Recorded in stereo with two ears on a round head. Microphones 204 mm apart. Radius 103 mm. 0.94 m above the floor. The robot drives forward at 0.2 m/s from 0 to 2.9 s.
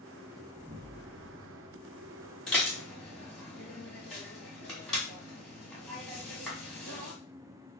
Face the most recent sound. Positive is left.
turn(degrees=0)  # may be behind; listen again after turning